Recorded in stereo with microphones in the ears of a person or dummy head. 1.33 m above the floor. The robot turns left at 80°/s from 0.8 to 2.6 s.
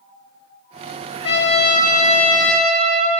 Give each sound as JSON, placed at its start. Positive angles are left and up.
{"t": 1.2, "sound": "a trumpet", "azimuth_deg": 110, "distance_m": 2.0}